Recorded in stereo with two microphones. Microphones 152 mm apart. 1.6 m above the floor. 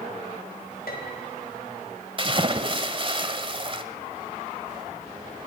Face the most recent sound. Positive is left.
turn(degrees=-35)  # may be behind; listen again after turning